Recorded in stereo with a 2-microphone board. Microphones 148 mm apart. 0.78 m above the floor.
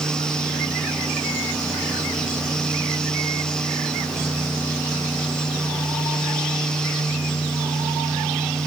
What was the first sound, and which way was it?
Only background noise.